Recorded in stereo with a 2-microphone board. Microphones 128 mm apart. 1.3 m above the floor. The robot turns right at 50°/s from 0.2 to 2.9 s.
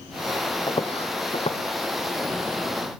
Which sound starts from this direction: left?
Footsteps, at 0.7 s.